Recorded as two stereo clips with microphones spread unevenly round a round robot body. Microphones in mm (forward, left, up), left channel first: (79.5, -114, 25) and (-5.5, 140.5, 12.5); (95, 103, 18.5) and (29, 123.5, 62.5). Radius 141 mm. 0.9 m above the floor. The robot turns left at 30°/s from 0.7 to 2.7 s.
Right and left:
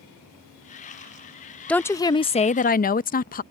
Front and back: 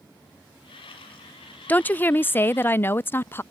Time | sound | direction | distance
1.7 | a woman speaking | 15° left | ?